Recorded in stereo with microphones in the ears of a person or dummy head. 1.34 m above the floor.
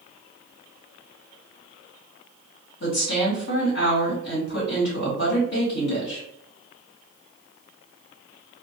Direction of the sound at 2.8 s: 65° left (ahead or behind).